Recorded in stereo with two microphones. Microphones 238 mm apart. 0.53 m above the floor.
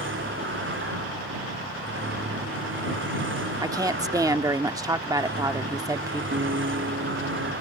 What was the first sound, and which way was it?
A vehicle, 55° right (ahead or behind).